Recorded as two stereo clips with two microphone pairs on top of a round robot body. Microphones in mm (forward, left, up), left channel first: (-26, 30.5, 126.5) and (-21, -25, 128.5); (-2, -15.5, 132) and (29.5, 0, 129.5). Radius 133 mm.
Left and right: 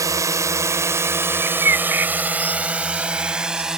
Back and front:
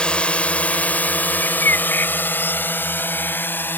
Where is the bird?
135° right.